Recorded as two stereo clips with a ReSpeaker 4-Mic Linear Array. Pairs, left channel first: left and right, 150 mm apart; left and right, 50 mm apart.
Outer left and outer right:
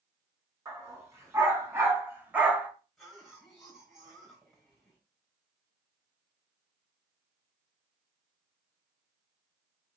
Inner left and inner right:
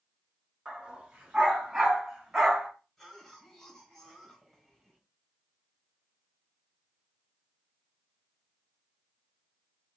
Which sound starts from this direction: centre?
A cough, at 3.0 s.